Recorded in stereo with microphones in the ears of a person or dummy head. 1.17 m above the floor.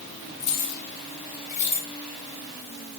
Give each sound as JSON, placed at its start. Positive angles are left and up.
{"t": 0.4, "sound": "keys jangling", "side_deg": 80, "distance_m": 2.0}